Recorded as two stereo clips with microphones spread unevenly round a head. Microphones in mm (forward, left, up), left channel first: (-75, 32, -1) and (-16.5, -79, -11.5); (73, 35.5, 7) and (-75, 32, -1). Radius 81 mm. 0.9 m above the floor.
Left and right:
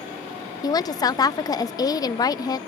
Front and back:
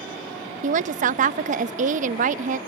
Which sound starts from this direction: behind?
A woman speaking, at 0.6 s.